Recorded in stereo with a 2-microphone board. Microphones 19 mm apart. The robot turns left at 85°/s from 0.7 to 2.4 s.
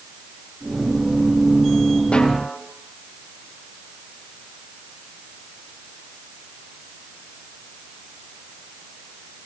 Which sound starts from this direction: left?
A snare drum, at 2.1 s.